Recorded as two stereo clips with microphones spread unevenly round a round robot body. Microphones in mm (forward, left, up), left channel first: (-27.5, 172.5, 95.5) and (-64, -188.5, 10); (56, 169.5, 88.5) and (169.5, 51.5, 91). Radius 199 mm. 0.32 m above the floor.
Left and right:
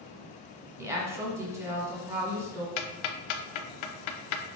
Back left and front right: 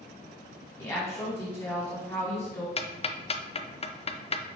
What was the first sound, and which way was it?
A woman speaking, 160° right.